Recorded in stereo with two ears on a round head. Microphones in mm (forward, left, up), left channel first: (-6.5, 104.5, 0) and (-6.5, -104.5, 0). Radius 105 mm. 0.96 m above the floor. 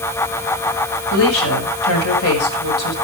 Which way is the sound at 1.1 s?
70° left (ahead or behind).